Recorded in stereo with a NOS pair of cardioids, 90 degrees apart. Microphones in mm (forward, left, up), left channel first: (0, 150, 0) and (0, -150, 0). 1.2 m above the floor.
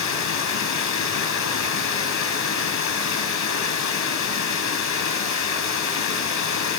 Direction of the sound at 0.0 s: 70° left.